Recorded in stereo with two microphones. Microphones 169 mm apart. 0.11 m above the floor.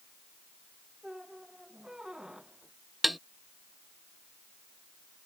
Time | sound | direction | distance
1.0 | a squeak | 5° right (ahead or behind) | ?
3.0 | tapping | centre (ahead or behind) | ?